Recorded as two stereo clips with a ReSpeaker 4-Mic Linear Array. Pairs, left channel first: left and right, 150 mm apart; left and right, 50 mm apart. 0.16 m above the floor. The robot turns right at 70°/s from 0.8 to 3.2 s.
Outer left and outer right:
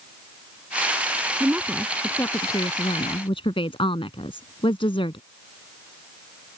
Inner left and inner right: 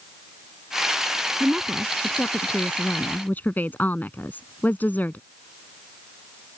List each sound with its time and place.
1.4 s a woman speaking: 30° right; by 5.2 s 100° left